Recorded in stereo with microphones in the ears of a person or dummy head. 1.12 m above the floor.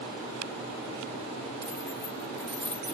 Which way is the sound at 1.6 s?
25° right (ahead or behind).